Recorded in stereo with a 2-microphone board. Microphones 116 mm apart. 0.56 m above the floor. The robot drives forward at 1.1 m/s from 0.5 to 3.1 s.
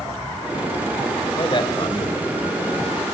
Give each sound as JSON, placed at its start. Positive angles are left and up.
{"t": 1.4, "sound": "a man speaking", "side_deg": 45, "distance_m": 2.5}